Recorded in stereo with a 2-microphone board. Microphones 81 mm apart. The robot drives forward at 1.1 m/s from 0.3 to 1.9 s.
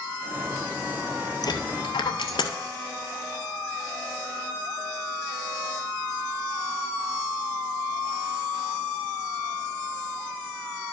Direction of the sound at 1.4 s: 60° left (ahead or behind).